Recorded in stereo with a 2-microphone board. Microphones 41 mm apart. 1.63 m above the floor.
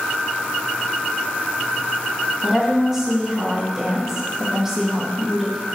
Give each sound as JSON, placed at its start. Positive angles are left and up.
{"t": 2.4, "sound": "a woman speaking", "side_deg": -10, "distance_m": 2.0}